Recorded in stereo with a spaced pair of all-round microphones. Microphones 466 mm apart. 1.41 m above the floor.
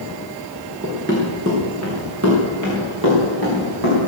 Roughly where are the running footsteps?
Centre.